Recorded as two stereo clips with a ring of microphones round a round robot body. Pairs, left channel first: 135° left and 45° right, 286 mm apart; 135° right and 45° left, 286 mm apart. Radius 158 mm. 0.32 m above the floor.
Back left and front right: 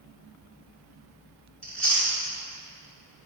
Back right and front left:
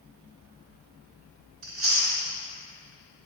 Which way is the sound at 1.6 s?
50° left.